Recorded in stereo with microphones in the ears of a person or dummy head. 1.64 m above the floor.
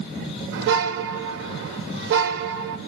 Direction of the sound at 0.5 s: 55° right (ahead or behind).